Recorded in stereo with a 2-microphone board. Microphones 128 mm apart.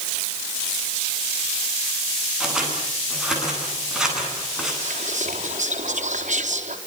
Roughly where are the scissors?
Centre.